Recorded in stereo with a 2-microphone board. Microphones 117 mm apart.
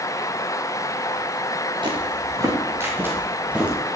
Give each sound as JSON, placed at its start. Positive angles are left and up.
{"t": 1.8, "sound": "footsteps", "side_deg": -40, "distance_m": 4.0}